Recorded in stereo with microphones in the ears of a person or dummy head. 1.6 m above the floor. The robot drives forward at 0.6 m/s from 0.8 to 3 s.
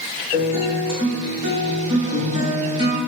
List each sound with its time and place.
0.3 s a guitar: 35° right (ahead or behind), 1.9 m; by 3.0 s 20° right (ahead or behind), 3 m